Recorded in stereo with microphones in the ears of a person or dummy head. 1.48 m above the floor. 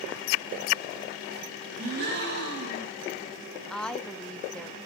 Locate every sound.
1.8 s a gasp: 50° right (ahead or behind), 7.5 m
3.7 s a woman speaking: 10° left (ahead or behind), 1.0 m